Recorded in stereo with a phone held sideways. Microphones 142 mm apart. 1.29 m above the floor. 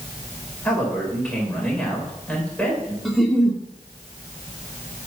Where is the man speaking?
10° left (ahead or behind), 5.5 m.